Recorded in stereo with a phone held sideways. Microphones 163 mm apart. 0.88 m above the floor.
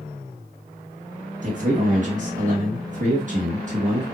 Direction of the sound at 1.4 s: 50° right (ahead or behind).